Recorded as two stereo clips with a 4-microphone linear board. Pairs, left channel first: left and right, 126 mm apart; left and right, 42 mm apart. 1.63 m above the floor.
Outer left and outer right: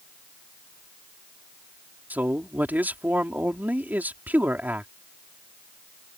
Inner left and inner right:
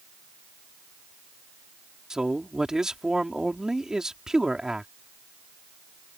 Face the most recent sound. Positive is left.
turn(degrees=-15)  # may be behind; listen again after turning